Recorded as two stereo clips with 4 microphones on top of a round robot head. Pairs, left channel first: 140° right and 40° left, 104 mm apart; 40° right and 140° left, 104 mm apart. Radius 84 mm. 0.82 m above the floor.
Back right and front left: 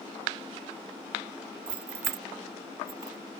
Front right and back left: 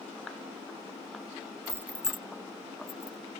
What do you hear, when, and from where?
1.7 s keys jangling: 75° left; by 3.2 s 10° left